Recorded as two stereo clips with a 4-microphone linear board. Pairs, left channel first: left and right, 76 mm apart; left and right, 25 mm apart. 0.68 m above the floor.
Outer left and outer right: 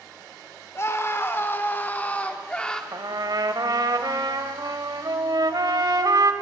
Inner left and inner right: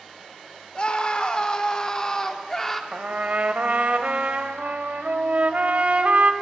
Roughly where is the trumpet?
Right.